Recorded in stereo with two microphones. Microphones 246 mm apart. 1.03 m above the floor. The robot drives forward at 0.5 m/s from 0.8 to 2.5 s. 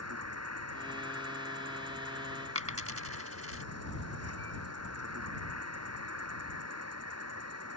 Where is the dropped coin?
65° right (ahead or behind).